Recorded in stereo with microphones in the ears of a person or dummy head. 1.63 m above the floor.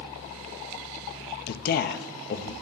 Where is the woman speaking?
55° left (ahead or behind), 0.7 m.